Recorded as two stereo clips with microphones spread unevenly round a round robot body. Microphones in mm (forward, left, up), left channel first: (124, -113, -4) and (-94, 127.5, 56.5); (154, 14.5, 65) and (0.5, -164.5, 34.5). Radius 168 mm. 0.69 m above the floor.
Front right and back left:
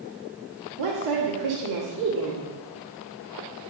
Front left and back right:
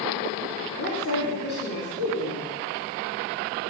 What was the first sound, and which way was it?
A woman speaking, 100° left.